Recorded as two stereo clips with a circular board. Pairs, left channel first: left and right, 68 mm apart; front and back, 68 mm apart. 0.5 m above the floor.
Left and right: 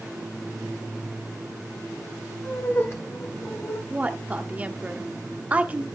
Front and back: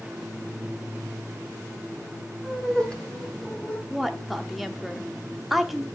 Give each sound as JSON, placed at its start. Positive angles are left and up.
{"t": 2.4, "sound": "laughter", "azimuth_deg": 80, "distance_m": 1.2}
{"t": 3.9, "sound": "a woman speaking", "azimuth_deg": -90, "distance_m": 0.8}